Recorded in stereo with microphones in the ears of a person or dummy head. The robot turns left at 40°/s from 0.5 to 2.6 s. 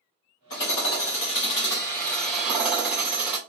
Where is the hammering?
85° left, 2.5 m; by 3.4 s straight ahead, 2.5 m.